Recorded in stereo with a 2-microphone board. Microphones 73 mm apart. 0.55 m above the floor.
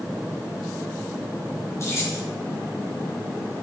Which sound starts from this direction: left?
Keys jangling, at 1.8 s.